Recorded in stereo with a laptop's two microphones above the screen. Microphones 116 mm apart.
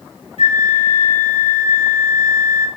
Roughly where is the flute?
Left.